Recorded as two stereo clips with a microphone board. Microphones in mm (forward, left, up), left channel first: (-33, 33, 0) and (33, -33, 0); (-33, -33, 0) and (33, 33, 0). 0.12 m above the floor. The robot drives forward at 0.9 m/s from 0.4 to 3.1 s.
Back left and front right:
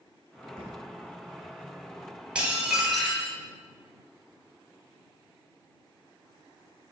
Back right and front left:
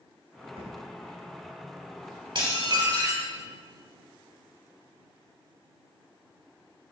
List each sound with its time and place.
0.6 s a thud: 55° left, 2.5 m; by 0.8 s 60° left, 2.5 m
2.4 s dishes clattering: 30° left, 1.8 m; by 3.3 s 50° left, 1.4 m